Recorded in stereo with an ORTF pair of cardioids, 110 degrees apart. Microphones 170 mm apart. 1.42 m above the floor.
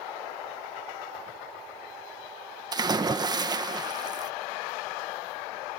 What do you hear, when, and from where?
2.7 s a splash: 25° right